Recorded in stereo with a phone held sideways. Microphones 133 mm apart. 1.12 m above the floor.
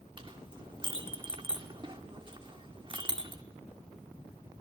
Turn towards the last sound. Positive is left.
turn(degrees=-35)  # may be behind; listen again after turning